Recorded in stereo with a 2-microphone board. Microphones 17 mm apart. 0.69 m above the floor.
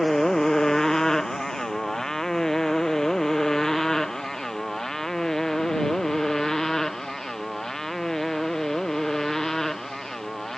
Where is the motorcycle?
30° left (ahead or behind); by 10.6 s 25° left (ahead or behind).